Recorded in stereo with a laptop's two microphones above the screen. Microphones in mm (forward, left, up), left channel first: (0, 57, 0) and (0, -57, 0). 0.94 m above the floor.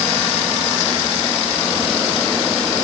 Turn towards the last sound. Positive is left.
No sound to turn to.